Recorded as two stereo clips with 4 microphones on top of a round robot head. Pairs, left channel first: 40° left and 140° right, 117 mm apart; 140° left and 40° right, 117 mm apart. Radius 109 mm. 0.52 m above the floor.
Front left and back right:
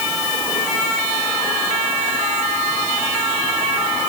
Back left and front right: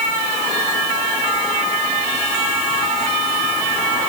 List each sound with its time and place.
Only background noise.